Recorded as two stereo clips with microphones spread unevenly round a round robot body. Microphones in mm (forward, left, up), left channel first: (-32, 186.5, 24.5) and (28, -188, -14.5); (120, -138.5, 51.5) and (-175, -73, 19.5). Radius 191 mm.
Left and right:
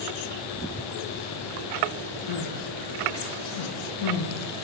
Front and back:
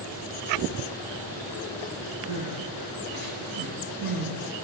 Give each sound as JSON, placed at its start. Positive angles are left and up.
{"t": 2.3, "sound": "crying", "azimuth_deg": 120, "distance_m": 9.5}